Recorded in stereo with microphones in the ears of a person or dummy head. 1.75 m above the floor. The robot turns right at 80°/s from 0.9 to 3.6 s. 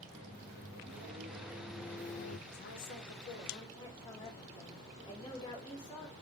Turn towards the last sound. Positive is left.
turn(degrees=160)